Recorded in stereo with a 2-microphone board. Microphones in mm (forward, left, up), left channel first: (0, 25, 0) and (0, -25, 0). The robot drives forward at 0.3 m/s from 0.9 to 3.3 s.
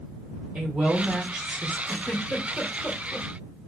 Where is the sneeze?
I don't hear a sneeze.